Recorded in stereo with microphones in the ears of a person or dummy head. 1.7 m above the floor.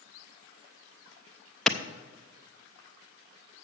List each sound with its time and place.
1.7 s a clap: 5° left (ahead or behind), 0.6 m